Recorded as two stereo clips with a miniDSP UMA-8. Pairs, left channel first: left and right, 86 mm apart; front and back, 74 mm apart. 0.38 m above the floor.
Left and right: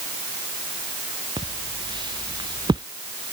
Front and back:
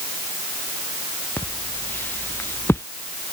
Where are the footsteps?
65° right; by 2.9 s 55° right.